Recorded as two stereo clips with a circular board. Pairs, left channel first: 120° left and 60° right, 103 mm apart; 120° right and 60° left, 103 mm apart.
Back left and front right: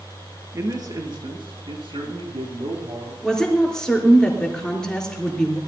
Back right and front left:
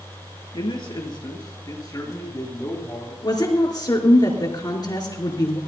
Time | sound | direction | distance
0.5 | a man speaking | 110° right | 2.5 m
3.2 | a woman speaking | 160° right | 3 m